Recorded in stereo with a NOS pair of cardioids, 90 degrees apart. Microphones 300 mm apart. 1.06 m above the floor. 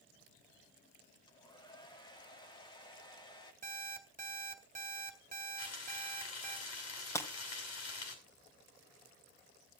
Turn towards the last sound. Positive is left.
turn(degrees=10)